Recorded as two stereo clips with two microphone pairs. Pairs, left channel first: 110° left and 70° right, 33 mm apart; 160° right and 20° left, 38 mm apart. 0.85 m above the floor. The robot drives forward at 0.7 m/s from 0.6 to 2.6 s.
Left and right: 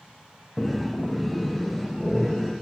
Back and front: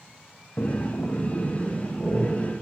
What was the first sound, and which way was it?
Breathing, 160° right.